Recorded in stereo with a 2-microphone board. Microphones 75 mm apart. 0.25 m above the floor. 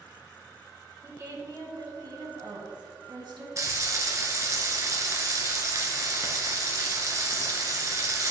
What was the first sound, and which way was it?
A woman speaking, 35° right (ahead or behind).